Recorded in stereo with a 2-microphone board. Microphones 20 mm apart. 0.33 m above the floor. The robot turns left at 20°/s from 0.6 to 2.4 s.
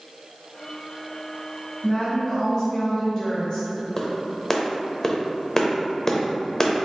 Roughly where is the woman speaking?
Centre.